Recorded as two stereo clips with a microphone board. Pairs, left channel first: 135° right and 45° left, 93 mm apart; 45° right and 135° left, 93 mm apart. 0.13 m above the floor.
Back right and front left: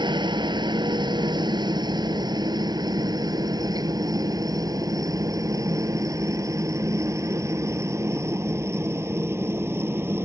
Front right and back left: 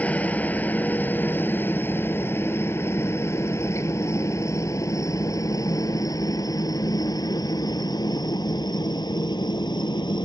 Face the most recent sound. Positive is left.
turn(degrees=-15)